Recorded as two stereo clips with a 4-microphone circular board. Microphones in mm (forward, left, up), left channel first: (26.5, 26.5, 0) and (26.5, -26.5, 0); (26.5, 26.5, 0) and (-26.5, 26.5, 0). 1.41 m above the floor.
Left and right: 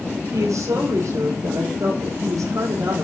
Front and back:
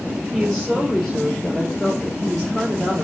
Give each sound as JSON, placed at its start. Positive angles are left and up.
{"t": 0.3, "sound": "a woman speaking", "azimuth_deg": -80, "distance_m": 5.5}